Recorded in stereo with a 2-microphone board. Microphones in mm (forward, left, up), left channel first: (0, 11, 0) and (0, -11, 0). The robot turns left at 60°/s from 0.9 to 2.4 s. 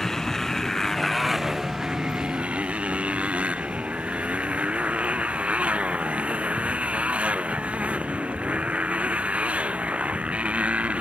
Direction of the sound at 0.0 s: 20° left.